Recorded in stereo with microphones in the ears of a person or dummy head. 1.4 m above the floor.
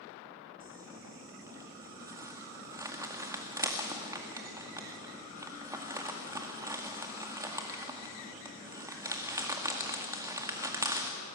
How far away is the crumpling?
About 1.9 m.